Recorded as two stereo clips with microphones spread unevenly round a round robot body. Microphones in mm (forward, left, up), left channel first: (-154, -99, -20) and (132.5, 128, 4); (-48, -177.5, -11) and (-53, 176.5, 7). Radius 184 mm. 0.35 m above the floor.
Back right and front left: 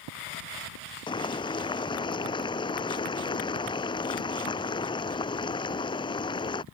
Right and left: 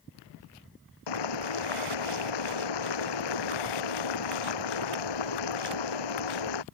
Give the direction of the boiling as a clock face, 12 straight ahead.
2 o'clock.